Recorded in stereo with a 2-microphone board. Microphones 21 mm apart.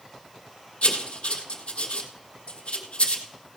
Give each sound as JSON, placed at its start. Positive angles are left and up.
{"t": 0.8, "sound": "writing", "side_deg": 80, "distance_m": 1.4}